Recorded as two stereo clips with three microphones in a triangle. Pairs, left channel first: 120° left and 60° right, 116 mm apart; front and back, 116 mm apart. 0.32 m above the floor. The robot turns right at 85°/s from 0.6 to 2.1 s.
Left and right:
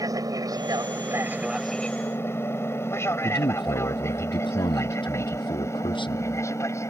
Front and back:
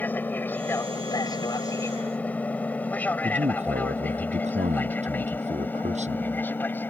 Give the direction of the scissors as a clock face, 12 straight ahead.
I don't hear scissors.